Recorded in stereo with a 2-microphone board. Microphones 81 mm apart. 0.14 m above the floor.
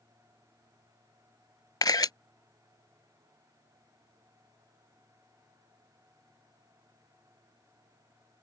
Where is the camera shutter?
55° left (ahead or behind).